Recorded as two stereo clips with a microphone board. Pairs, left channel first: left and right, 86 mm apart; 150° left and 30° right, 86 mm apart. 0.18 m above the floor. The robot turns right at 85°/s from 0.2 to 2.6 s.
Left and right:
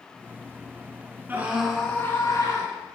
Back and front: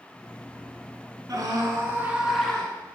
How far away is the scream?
About 2 m.